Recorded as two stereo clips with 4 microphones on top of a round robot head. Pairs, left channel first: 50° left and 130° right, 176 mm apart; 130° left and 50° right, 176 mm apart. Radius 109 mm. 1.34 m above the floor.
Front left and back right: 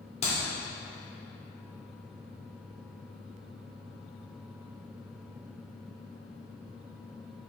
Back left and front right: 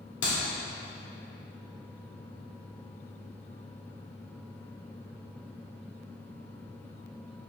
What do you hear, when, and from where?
0.2 s a clap: 105° left, 3 m